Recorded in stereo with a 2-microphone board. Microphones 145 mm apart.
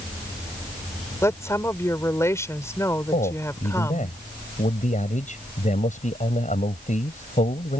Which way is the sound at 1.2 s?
20° left (ahead or behind).